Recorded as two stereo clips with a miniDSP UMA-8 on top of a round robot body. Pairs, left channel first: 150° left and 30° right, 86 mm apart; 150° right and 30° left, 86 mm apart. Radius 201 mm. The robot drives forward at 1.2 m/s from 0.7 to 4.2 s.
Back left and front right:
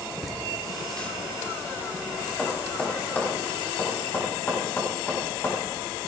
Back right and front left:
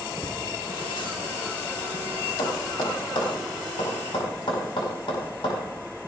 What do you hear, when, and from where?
0.2 s laughter: 120° right, 1.4 m; by 2.3 s 155° right, 3 m
2.4 s tapping: 130° right, 3.5 m; by 5.6 s 150° right, 5.5 m